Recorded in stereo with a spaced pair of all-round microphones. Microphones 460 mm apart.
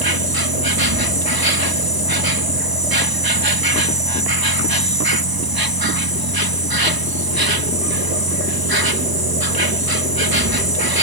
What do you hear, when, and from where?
0.0 s an insect: 50° right (ahead or behind)